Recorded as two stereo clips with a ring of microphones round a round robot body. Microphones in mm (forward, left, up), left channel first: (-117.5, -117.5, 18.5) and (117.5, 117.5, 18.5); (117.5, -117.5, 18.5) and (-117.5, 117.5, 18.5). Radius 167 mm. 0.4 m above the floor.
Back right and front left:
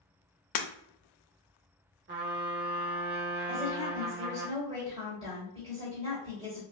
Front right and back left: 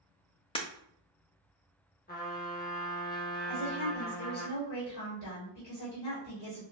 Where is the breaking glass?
120° right, 0.6 m.